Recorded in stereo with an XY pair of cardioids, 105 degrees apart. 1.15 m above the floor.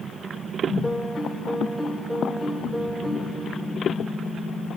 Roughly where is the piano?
Ahead.